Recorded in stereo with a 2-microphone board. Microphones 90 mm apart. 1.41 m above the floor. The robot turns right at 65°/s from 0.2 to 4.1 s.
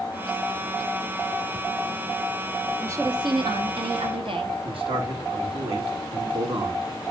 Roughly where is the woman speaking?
Behind right.